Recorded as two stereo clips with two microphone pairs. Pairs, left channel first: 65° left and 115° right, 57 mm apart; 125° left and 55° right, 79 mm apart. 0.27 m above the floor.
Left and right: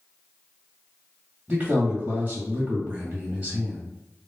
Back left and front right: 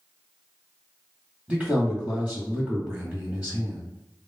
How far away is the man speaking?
About 1.5 m.